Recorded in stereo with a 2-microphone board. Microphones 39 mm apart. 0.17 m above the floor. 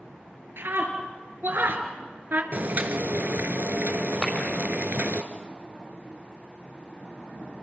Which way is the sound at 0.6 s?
65° right (ahead or behind).